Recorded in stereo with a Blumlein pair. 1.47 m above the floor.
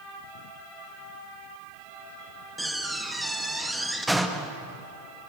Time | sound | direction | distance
2.6 | a door slam | 5° right | 1.5 m